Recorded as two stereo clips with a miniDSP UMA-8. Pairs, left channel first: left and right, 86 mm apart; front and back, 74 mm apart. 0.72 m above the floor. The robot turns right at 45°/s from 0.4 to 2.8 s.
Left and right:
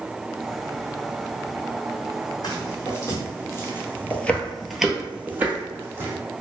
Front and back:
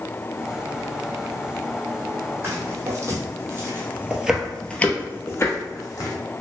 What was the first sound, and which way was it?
Footsteps, 125° left.